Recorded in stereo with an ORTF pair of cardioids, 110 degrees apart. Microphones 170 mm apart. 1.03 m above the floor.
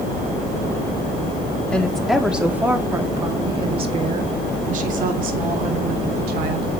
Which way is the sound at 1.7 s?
5° left.